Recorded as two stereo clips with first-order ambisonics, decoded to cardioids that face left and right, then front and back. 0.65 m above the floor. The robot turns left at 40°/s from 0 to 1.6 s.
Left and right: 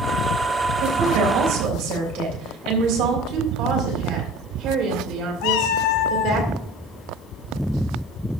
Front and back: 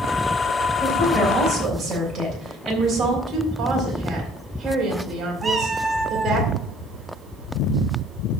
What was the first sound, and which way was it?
A woman speaking, 85° right.